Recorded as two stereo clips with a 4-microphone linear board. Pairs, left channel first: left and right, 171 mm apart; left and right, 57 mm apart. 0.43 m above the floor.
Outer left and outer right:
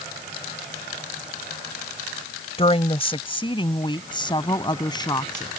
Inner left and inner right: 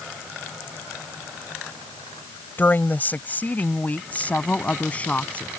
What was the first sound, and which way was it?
A woman speaking, 35° left (ahead or behind).